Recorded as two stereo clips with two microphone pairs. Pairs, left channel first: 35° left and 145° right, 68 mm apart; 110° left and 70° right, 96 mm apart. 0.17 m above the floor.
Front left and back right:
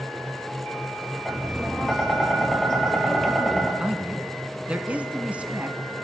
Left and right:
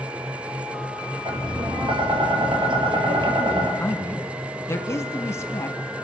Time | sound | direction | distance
1.2 | tapping | 45° right | 3.5 m
3.8 | a man speaking | 155° left | 1.3 m